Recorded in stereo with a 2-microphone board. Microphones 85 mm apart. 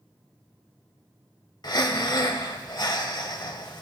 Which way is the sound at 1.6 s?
55° left (ahead or behind).